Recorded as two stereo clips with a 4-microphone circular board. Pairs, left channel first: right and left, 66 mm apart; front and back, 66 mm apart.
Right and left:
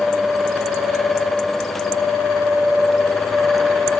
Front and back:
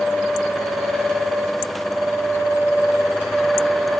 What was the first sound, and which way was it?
Only background noise.